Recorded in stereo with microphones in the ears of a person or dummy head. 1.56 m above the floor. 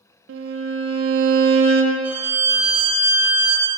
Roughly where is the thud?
No thud in this recording.